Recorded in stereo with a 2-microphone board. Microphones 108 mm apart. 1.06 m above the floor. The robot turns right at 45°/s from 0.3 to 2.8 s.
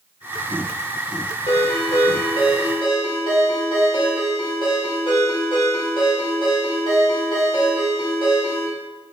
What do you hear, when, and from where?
1.5 s a ringtone: 70° left, 2.5 m; by 8.7 s 130° left, 2.5 m